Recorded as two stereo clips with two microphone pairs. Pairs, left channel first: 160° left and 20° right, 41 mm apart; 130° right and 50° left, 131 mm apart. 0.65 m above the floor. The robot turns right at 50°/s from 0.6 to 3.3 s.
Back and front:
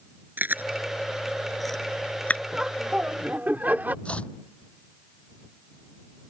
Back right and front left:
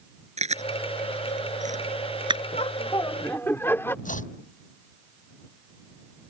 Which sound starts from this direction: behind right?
Chopping, at 4.0 s.